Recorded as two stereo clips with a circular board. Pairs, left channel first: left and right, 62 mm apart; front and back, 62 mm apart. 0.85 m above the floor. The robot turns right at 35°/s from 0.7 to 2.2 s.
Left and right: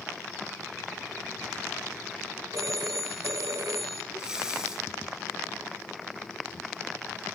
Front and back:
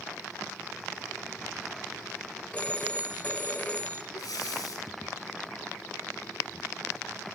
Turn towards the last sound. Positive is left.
turn(degrees=-10)